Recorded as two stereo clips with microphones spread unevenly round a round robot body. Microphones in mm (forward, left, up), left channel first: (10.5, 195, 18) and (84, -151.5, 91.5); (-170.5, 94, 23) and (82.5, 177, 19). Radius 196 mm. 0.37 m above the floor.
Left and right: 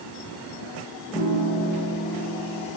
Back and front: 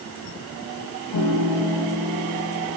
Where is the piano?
175° right, 3.5 m.